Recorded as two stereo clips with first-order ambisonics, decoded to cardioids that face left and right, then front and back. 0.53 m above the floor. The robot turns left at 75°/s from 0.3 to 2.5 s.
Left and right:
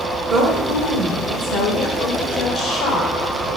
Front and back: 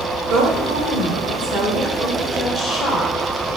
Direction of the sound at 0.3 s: 140° right.